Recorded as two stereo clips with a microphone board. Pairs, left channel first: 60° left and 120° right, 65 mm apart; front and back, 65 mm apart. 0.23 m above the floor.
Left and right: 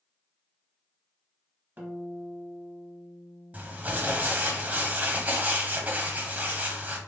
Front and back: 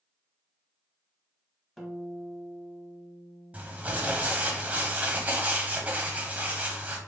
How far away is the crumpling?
About 0.8 m.